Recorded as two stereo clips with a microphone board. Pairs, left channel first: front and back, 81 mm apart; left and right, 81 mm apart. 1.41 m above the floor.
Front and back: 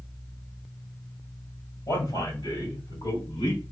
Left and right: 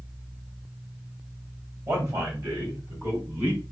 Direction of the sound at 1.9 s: 35° right.